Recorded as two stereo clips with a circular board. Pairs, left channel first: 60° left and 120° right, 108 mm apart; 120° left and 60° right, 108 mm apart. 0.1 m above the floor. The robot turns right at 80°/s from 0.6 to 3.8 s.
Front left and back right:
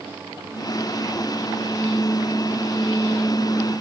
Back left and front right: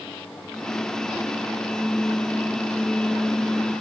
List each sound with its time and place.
Only background noise.